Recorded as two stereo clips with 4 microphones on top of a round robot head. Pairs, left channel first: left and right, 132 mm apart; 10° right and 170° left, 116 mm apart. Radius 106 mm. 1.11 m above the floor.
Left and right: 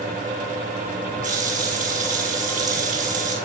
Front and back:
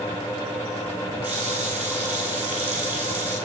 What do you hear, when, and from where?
1.2 s a running tap: 110° right, 8 m